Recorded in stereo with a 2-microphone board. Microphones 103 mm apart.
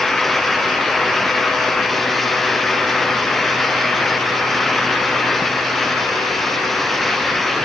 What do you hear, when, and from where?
Only background noise.